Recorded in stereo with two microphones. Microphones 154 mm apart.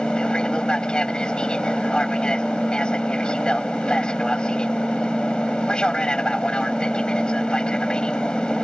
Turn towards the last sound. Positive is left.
turn(degrees=5)  # may be behind; listen again after turning